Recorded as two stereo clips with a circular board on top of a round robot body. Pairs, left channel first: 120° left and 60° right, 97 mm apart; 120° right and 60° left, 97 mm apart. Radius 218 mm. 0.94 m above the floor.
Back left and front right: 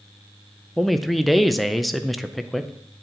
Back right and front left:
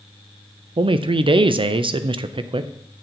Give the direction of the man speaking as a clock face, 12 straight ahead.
11 o'clock.